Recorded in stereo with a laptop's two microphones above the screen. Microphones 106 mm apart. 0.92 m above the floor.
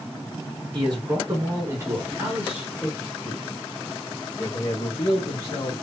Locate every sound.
0.7 s a man speaking: 50° right (ahead or behind), 1.4 m; by 5.8 s 40° left (ahead or behind), 2 m